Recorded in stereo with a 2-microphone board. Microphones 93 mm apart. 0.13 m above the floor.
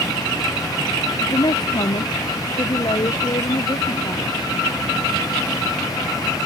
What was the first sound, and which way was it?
A woman speaking, 50° left (ahead or behind).